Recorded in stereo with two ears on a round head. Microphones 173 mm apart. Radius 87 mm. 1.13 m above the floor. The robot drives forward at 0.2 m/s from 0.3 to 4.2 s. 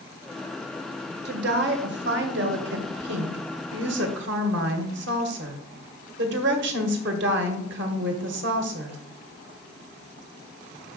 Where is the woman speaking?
55° right (ahead or behind), 1.2 m; by 9.0 s 65° right (ahead or behind), 1.1 m.